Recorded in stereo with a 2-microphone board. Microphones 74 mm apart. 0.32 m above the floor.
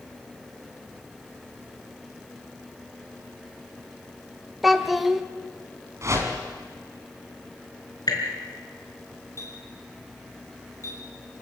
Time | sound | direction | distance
4.6 | a child speaking | centre (ahead or behind) | 1.0 m
6.0 | a whoosh | 40° right (ahead or behind) | 3 m
8.1 | dripping | 65° left (ahead or behind) | 4.5 m
9.4 | a clink | 45° left (ahead or behind) | 7 m